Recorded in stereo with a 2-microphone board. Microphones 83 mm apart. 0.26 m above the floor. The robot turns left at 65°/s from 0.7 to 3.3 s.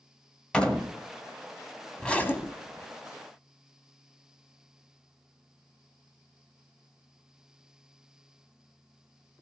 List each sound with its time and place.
0.5 s a door slam: 10° left (ahead or behind), 1.0 m; by 0.9 s 15° left (ahead or behind), 1.0 m
2.0 s a zipper: 170° left, 0.8 m; by 2.9 s 115° left, 0.8 m